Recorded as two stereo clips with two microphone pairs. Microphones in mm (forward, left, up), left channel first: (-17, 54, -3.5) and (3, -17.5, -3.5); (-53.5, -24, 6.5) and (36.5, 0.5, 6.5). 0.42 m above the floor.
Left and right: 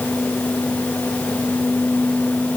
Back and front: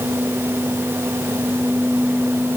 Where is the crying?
No crying in this recording.